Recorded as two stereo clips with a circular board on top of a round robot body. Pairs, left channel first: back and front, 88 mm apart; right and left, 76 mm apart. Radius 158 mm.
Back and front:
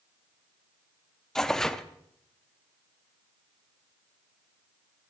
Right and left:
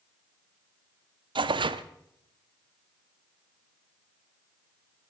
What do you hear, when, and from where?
1.4 s tearing paper: 95° left, 0.7 m